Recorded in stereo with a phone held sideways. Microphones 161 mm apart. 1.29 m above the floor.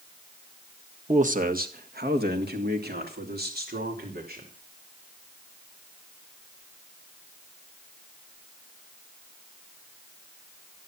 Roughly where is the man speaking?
Right.